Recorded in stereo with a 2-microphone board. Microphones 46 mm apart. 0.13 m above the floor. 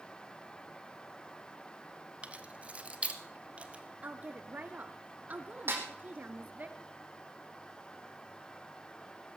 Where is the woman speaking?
35° right (ahead or behind), 1.6 m.